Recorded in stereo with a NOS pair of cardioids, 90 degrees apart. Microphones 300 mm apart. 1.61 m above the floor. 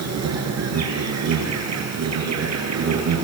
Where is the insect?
60° right, 9 m.